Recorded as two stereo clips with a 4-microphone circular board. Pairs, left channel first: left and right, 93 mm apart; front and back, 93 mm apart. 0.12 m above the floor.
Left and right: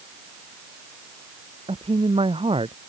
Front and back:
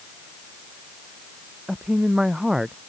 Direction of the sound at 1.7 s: 95° right.